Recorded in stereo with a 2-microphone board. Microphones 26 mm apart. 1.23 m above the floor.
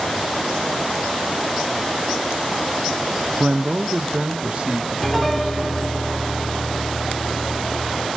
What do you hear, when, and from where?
3.4 s a man speaking: 40° right (ahead or behind), 0.5 m; by 6.0 s 50° right (ahead or behind), 2 m
5.0 s a piano: 10° left (ahead or behind), 1.6 m